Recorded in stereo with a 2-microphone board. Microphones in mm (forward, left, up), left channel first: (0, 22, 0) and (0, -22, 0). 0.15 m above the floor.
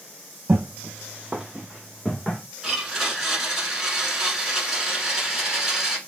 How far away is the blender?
About 1.1 m.